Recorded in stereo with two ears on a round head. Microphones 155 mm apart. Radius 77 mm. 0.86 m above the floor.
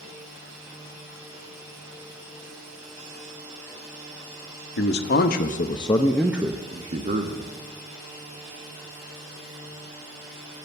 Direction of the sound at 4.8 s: 70° left (ahead or behind).